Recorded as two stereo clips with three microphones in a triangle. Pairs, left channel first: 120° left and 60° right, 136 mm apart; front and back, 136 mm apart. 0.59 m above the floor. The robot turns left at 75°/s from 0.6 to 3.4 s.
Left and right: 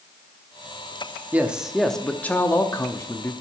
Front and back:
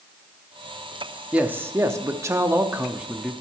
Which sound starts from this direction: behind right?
A man speaking, at 1.3 s.